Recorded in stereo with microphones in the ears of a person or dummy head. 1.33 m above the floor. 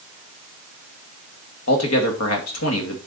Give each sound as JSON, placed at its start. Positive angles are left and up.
{"t": 1.7, "sound": "a man speaking", "side_deg": 80, "distance_m": 2.5}